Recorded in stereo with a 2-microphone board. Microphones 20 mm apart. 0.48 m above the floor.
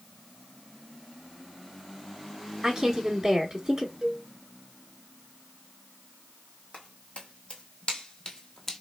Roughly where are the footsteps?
Left.